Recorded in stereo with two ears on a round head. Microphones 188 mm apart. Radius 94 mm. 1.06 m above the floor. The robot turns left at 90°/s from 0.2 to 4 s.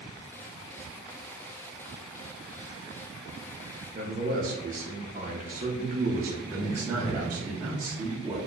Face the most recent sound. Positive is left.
turn(degrees=-10)  # may be behind; listen again after turning